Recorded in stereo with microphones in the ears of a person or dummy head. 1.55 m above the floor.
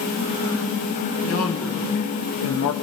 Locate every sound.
1.2 s a man speaking: 85° left, 3.5 m; by 2.7 s 80° left, 2.0 m